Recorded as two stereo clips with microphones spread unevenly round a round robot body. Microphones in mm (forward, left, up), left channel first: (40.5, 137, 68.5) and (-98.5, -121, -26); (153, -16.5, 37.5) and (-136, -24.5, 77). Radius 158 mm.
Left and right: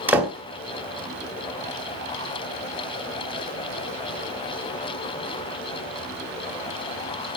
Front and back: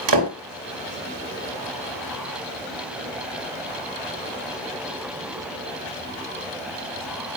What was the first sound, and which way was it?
A door slam, 160° left.